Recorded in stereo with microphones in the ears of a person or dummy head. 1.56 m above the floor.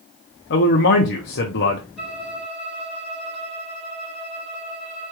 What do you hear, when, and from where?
0.5 s a man speaking: 55° left (ahead or behind), 0.7 m
2.0 s a violin: 5° right (ahead or behind), 3.5 m